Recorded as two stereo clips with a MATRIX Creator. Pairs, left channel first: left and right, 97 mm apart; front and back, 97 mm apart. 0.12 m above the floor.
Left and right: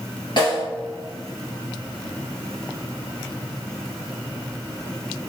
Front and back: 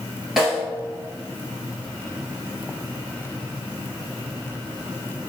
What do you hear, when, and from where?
0.4 s a snare drum: 95° left, 1.5 m